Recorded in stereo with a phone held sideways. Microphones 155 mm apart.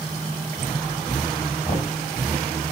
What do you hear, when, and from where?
1.6 s knocking: 30° left (ahead or behind), 6 m